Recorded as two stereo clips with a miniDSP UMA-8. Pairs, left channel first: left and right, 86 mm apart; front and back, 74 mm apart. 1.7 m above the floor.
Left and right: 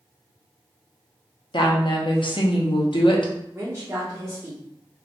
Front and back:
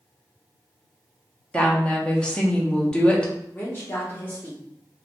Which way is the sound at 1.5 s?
75° left.